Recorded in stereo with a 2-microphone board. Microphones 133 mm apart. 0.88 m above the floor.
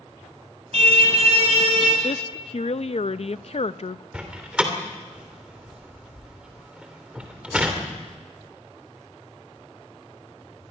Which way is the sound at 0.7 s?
60° right (ahead or behind).